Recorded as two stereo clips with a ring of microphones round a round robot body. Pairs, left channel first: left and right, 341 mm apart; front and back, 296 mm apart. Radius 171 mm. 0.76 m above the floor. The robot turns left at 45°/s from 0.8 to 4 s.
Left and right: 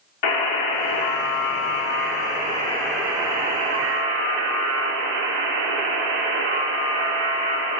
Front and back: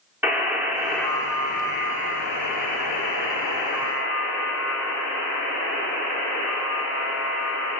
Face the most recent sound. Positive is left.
turn(degrees=-45)